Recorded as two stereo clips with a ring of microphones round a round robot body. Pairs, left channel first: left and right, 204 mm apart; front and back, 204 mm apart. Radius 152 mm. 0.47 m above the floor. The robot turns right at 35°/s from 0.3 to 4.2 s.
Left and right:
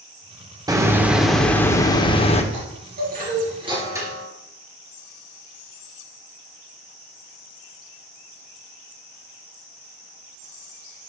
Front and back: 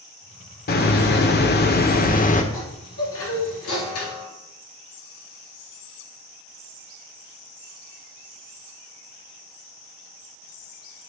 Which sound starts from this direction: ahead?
A hiss, at 0.7 s.